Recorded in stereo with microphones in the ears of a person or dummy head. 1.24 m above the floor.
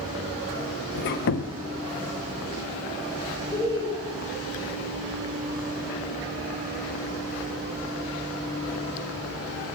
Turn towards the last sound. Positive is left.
turn(degrees=15)  # may be behind; listen again after turning